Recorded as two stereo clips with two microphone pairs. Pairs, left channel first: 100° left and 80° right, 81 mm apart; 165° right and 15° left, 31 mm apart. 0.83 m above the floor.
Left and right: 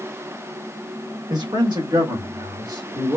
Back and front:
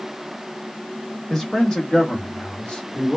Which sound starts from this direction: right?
A man speaking, at 1.3 s.